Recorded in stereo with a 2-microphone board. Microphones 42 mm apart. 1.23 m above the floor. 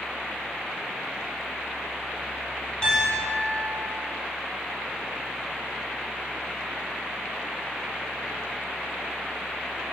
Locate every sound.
2.8 s a piano: 20° left (ahead or behind), 1.2 m